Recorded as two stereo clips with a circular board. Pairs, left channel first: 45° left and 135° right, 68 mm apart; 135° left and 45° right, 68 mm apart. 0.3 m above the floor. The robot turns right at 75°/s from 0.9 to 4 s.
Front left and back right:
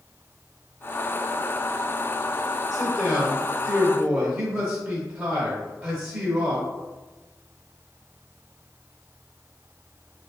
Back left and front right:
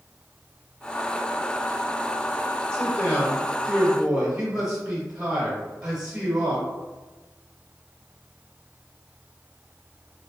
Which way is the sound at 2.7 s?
150° left.